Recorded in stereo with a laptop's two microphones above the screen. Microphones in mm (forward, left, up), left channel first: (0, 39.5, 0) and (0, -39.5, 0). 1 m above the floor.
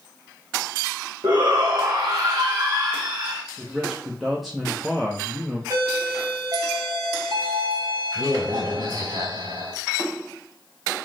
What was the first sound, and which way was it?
A shout, 55° right (ahead or behind).